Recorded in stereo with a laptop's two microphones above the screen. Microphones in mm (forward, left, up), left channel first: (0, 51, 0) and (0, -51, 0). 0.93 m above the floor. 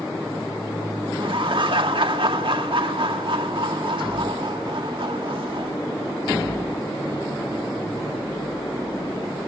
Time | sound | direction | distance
1.1 | laughter | 65° right (ahead or behind) | 2 m